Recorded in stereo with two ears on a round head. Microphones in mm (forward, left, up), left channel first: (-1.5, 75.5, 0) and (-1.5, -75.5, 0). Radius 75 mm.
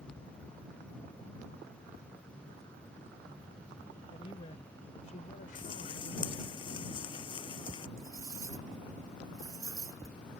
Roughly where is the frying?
Left.